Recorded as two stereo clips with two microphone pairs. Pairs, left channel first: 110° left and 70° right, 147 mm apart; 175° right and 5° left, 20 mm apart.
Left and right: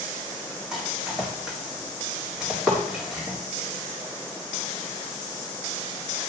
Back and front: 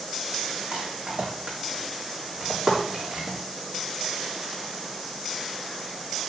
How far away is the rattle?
About 4 m.